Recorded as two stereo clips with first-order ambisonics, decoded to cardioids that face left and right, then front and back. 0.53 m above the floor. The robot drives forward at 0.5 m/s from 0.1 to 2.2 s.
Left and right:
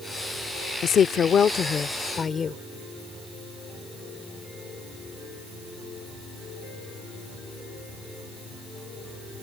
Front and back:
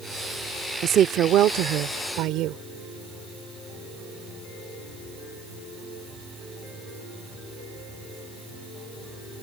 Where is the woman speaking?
135° left; by 2.6 s 155° left.